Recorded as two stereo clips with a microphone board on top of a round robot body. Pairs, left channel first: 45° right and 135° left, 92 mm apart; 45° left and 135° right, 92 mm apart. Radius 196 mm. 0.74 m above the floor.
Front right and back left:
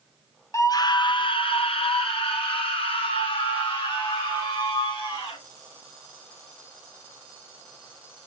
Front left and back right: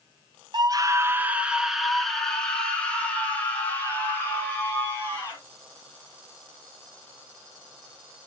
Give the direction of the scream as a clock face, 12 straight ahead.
3 o'clock.